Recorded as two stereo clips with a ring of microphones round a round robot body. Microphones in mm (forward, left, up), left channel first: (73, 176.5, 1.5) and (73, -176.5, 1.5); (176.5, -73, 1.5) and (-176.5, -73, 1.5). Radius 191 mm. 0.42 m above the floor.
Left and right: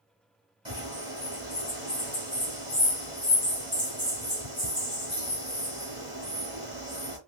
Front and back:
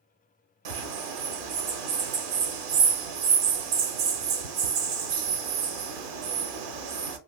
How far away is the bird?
About 0.8 m.